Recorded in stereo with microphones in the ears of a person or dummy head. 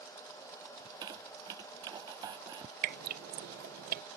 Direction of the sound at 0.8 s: 25° right (ahead or behind).